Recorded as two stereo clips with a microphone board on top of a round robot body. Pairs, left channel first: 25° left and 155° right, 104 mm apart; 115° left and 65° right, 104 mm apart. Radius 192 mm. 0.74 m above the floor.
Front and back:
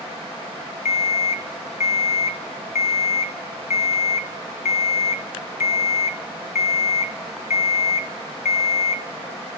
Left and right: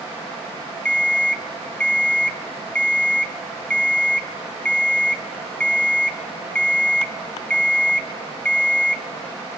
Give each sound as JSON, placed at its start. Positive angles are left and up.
{"t": 0.8, "sound": "an alarm clock", "azimuth_deg": 30, "distance_m": 0.9}